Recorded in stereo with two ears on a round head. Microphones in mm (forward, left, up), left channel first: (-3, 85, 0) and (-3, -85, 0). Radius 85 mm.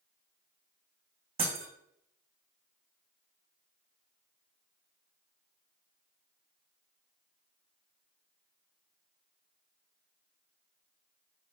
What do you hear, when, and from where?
1.4 s breaking glass: 30° right (ahead or behind), 3.5 m